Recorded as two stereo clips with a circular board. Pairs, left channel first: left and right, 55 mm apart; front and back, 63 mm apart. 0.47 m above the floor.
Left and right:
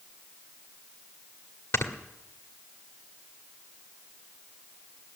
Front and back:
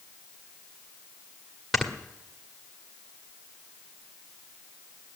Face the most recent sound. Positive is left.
turn(degrees=90)